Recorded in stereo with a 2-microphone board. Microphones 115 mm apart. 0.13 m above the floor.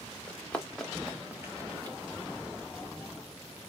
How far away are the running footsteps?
About 1.5 m.